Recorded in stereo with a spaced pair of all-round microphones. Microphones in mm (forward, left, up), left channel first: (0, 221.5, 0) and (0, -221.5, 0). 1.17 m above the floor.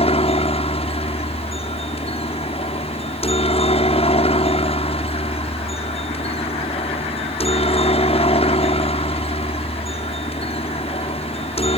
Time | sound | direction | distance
0.0 | a helicopter | 15° left (ahead or behind) | ?